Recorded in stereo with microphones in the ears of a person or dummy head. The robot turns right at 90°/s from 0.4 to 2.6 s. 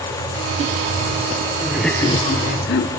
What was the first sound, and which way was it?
Laughter, 20° right.